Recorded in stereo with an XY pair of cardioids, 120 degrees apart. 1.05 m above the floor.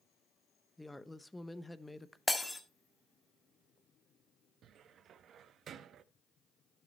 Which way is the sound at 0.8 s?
5° left.